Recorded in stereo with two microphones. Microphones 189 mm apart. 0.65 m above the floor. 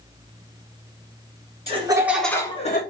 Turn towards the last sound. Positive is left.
turn(degrees=45)  # may be behind; listen again after turning